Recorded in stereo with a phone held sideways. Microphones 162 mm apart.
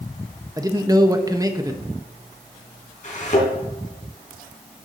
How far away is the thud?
About 3.5 m.